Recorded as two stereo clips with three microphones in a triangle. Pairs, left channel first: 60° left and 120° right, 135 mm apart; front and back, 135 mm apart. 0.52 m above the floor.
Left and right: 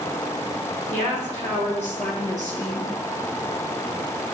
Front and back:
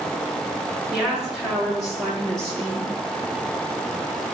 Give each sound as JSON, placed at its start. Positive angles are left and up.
{"t": 0.9, "sound": "a woman speaking", "azimuth_deg": 95, "distance_m": 7.0}